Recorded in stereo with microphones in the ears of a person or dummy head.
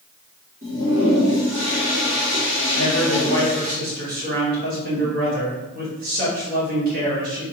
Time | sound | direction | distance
0.6 | a toilet flushing | 40° right (ahead or behind) | 1.5 m
2.7 | a man speaking | 50° right (ahead or behind) | 1.7 m